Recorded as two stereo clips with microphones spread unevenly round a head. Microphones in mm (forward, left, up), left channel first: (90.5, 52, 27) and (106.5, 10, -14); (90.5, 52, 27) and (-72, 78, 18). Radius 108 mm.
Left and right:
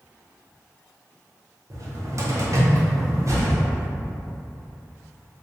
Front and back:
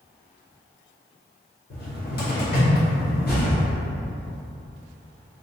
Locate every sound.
1.7 s a cupboard door: 25° right, 1.3 m